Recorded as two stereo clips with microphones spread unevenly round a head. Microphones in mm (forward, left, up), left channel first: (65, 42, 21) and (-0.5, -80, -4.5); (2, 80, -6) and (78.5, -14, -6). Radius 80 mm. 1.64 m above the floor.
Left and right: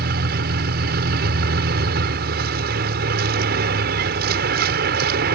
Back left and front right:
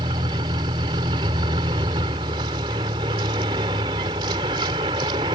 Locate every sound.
0.0 s a vehicle: 115° right